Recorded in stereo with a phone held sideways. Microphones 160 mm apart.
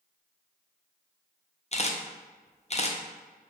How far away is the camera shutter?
About 0.5 m.